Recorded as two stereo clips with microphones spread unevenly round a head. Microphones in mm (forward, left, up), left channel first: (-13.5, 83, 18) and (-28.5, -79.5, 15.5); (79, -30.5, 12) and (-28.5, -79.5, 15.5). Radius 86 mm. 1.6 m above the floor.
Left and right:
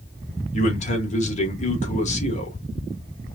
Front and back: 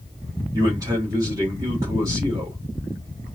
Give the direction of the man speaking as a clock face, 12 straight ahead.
8 o'clock.